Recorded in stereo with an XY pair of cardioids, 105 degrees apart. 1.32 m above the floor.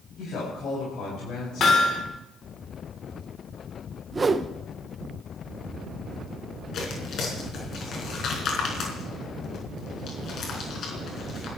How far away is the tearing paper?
About 5 m.